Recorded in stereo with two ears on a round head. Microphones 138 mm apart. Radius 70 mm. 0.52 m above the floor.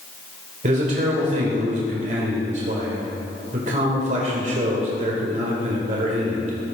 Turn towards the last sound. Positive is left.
turn(degrees=-50)  # may be behind; listen again after turning